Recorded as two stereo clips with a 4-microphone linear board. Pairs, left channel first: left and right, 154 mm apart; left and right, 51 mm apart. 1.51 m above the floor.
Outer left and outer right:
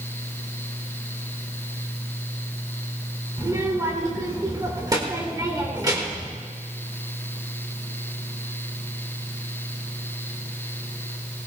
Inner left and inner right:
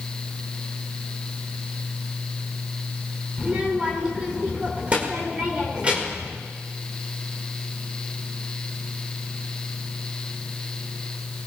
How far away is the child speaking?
About 1.7 m.